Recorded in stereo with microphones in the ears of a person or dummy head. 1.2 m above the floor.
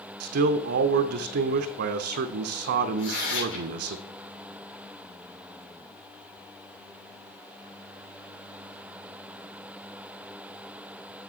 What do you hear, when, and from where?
0.2 s a man speaking: 60° right (ahead or behind), 0.5 m
3.0 s tearing paper: 85° left, 5 m